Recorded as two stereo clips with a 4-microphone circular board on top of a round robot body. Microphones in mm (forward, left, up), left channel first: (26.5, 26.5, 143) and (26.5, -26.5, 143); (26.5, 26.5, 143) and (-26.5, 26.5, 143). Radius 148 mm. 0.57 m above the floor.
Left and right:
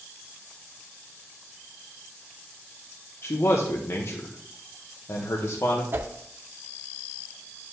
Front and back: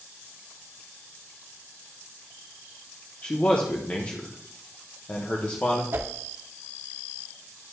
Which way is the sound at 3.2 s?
60° left.